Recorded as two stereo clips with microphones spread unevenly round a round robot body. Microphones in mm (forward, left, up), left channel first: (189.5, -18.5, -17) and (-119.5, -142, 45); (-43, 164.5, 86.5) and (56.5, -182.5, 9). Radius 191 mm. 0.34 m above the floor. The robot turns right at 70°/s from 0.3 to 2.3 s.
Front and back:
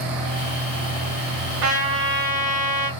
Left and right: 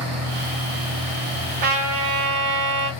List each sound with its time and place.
1.6 s a trumpet: 135° right, 1.1 m; by 2.9 s 90° right, 1.1 m